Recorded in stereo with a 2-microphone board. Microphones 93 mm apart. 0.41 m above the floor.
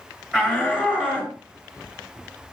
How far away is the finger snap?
No finger snap in this recording.